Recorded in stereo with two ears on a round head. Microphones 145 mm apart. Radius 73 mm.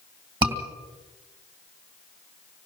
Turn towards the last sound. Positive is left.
turn(degrees=-25)  # may be behind; listen again after turning